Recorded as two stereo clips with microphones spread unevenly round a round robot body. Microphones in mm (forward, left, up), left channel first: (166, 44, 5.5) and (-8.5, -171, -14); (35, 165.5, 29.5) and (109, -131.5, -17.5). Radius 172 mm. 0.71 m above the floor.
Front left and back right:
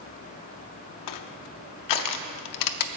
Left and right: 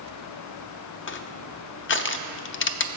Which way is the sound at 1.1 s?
45° left.